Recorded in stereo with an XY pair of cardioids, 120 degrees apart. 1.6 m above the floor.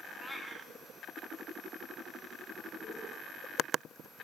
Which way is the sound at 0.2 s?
5° left.